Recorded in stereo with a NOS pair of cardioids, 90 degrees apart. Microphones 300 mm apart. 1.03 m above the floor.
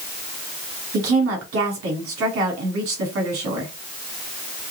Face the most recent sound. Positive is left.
turn(degrees=-65)